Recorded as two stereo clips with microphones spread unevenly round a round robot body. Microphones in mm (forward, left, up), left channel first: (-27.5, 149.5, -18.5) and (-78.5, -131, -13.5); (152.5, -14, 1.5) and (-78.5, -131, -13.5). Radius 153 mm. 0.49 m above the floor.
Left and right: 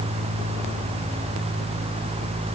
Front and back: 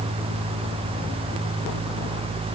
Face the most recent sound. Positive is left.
No sound to turn to.